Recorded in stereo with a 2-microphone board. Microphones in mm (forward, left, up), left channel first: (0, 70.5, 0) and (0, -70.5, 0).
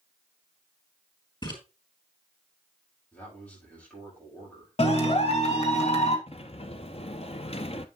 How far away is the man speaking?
About 8 m.